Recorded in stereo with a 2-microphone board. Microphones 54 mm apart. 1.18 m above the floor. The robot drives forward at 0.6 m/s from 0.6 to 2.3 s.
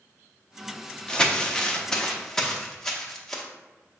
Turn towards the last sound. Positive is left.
turn(degrees=10)  # may be behind; listen again after turning